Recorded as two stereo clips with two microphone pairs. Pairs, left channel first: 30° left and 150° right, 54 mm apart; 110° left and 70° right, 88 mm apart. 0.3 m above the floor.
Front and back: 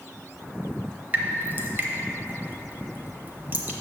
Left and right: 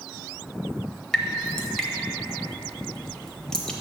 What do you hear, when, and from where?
1.1 s dripping: 170° right, 0.7 m